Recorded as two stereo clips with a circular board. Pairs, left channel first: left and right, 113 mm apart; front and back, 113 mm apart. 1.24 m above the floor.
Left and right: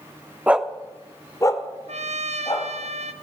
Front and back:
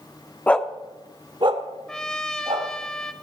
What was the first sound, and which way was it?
A dog barking, 40° right.